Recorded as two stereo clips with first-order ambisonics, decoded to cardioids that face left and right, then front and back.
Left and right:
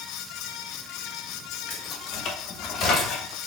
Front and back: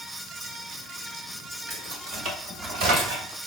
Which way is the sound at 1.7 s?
135° left.